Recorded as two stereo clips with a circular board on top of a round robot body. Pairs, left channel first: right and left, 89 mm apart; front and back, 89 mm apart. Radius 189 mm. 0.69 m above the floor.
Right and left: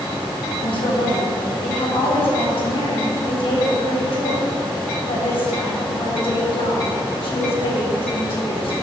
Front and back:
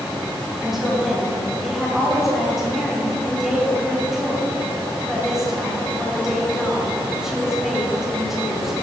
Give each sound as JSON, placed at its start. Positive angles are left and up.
{"t": 0.6, "sound": "a woman speaking", "azimuth_deg": -95, "distance_m": 3.0}